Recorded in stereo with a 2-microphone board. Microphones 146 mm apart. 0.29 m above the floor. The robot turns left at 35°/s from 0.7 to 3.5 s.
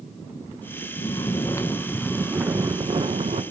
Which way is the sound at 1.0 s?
40° left.